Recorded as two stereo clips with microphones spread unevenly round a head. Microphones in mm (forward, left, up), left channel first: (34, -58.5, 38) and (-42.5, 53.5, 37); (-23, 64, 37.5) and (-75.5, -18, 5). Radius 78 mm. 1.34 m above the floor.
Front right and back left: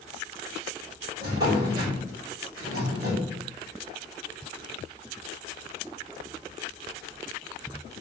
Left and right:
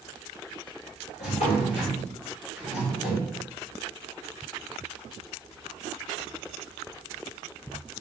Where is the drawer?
65° left, 4.5 m.